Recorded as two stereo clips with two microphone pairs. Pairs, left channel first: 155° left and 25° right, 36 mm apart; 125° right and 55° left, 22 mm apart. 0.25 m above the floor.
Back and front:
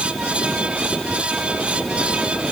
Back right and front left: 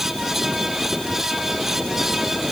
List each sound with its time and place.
Only background noise.